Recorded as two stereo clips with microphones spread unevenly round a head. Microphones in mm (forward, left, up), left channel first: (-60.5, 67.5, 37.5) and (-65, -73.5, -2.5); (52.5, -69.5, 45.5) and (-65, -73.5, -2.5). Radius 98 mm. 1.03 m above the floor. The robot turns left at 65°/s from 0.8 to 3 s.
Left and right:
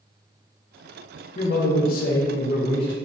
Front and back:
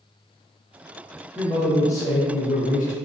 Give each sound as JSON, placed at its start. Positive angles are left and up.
{"t": 1.4, "sound": "a man speaking", "azimuth_deg": 120, "distance_m": 0.7}